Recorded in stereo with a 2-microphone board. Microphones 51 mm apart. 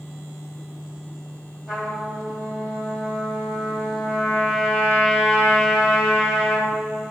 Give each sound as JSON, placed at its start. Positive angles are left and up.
{"t": 1.7, "sound": "a trumpet", "side_deg": -5, "distance_m": 1.8}